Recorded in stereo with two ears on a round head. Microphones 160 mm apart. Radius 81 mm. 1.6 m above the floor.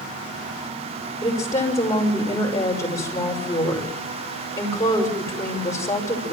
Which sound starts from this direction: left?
A woman speaking, at 1.2 s.